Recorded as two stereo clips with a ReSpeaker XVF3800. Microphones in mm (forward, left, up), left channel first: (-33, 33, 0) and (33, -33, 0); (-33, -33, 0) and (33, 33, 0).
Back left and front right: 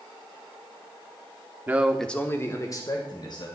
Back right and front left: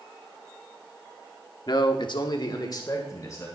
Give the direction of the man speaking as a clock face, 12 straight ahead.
4 o'clock.